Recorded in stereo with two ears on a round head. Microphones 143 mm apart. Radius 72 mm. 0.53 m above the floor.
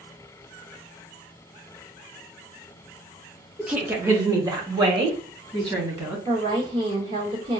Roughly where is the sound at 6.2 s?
Right.